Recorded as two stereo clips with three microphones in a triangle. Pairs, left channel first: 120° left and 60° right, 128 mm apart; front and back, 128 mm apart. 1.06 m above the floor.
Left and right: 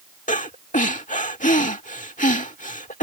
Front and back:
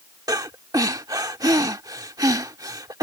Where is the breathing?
120° left.